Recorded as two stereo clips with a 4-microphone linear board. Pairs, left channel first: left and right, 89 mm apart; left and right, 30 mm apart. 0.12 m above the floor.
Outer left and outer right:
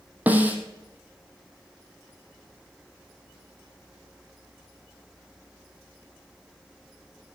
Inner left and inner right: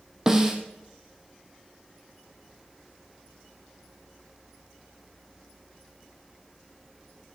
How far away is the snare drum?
About 1.5 m.